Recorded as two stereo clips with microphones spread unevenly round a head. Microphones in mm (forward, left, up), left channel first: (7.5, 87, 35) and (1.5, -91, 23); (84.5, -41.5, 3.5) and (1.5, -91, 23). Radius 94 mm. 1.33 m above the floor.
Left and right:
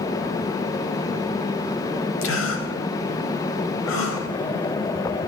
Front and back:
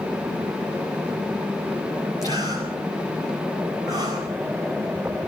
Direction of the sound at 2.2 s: 105° left.